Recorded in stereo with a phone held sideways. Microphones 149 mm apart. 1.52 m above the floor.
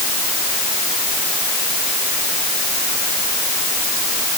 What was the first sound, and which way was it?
Only background noise.